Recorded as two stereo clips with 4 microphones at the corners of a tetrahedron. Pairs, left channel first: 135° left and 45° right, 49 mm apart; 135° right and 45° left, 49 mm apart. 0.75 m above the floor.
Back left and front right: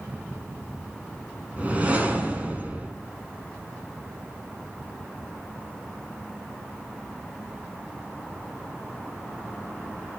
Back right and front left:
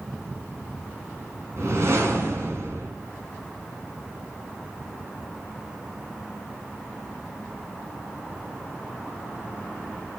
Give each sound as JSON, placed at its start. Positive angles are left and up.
{"t": 1.6, "sound": "a whoosh", "azimuth_deg": 20, "distance_m": 4.0}